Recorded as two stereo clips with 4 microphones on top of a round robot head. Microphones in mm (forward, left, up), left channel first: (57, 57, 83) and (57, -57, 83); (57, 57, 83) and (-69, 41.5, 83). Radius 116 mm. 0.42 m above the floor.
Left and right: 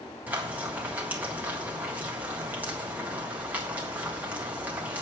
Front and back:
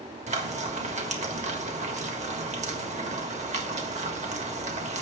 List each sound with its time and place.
0.3 s frying: 165° right, 1.6 m